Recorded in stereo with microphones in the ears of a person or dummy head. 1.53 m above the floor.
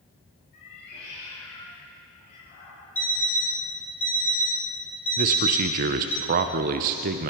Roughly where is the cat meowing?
Left.